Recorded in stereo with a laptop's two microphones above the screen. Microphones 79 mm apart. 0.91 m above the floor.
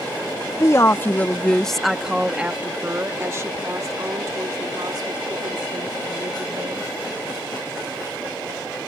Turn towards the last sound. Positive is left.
turn(degrees=-65)  # may be behind; listen again after turning